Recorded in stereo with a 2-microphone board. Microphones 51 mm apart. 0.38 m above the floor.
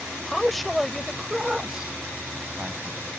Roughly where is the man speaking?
Centre.